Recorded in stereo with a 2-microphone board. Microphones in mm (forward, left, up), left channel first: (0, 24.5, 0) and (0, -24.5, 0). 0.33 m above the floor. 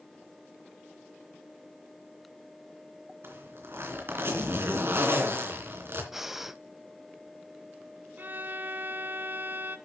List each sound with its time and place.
3.2 s a zipper: 55° right (ahead or behind), 2.5 m
6.1 s breathing: 5° right (ahead or behind), 0.6 m
8.2 s a violin: 40° right (ahead or behind), 0.7 m